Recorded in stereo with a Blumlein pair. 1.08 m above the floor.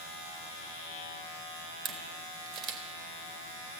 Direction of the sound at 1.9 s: 35° right.